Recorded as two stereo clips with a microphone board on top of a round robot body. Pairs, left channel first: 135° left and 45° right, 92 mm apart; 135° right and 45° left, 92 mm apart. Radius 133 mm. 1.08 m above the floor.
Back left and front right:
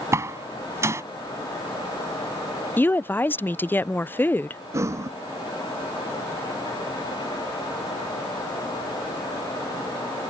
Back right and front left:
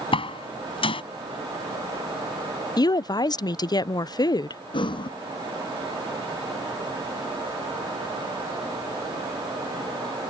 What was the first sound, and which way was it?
A door slam, 110° right.